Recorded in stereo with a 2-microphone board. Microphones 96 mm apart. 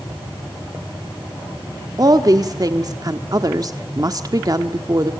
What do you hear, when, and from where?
2.0 s a woman speaking: 40° right (ahead or behind), 1.3 m